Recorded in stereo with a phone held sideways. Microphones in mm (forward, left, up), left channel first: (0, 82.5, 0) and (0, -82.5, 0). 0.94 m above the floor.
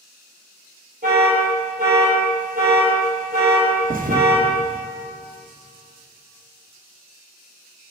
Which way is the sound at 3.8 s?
60° right (ahead or behind).